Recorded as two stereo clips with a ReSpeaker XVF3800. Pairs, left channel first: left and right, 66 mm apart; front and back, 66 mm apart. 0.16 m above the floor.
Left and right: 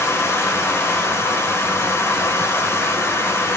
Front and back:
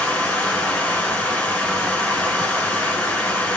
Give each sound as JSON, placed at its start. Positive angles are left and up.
{"t": 0.0, "sound": "running water", "azimuth_deg": 65, "distance_m": 0.9}